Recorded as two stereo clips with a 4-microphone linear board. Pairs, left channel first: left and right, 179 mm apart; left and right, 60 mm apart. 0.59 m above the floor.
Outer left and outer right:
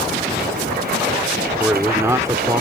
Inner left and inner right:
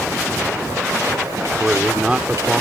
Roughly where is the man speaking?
Centre.